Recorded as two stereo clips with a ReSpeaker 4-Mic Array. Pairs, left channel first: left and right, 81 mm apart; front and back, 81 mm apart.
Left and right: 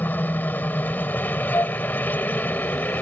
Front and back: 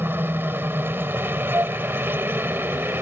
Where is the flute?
135° left.